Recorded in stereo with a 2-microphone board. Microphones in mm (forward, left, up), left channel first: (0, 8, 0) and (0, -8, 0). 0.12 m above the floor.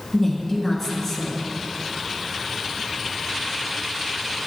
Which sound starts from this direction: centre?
A woman speaking, at 0.1 s.